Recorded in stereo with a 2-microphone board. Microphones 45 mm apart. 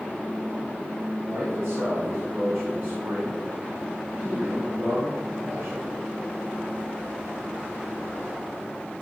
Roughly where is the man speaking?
Right.